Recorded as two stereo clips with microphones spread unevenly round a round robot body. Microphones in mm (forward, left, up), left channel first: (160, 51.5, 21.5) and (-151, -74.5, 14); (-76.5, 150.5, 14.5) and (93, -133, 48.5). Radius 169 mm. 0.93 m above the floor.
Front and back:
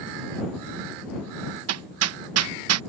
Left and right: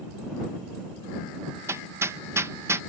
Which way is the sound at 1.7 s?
145° right.